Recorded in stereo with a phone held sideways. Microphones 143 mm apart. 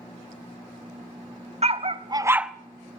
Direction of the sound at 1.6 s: 45° right (ahead or behind).